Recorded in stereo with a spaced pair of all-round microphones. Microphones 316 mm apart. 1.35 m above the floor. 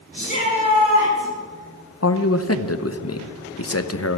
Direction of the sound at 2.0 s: 50° left (ahead or behind).